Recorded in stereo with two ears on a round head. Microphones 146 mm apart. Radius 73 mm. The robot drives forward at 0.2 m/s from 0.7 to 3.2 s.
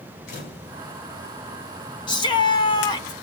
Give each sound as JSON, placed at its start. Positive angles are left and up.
{"t": 0.3, "sound": "a camera shutter", "side_deg": 55, "distance_m": 4.0}
{"t": 2.1, "sound": "a shout", "side_deg": 30, "distance_m": 1.2}